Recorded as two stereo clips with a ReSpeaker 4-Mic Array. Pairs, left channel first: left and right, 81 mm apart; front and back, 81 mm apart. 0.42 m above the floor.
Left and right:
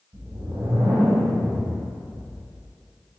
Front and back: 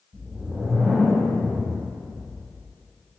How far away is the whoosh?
About 1.2 m.